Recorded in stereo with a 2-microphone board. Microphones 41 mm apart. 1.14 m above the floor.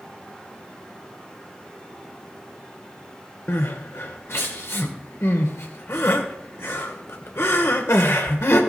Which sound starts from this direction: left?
Crying, at 3.5 s.